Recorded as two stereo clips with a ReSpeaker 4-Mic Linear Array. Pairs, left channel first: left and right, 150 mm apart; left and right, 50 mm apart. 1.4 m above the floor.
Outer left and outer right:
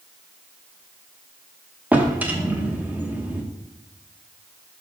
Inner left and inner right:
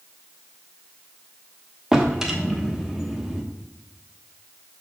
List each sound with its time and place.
1.9 s a drawer: 10° right (ahead or behind), 1.0 m